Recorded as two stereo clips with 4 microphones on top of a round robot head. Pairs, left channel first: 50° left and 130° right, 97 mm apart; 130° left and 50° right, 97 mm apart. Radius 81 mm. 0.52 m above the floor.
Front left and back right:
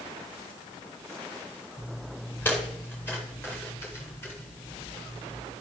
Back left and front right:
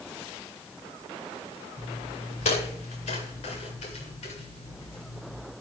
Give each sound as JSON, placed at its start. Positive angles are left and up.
{"t": 1.8, "sound": "footsteps", "azimuth_deg": 125, "distance_m": 7.5}